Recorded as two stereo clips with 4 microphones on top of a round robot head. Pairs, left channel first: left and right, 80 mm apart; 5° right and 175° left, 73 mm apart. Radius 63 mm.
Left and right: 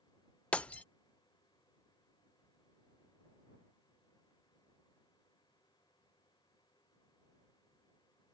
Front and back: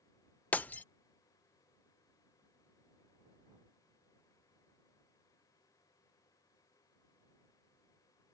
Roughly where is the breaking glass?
Ahead left.